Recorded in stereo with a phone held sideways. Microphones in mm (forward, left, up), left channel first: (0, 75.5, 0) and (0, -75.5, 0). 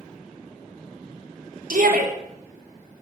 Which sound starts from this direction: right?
A shout, at 1.7 s.